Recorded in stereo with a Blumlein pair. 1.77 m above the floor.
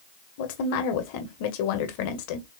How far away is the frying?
I don't hear frying.